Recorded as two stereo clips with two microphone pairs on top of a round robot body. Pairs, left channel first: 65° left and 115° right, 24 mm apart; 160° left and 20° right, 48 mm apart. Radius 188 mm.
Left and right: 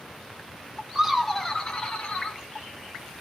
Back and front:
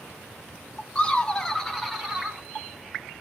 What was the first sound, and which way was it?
Laughter, 145° right.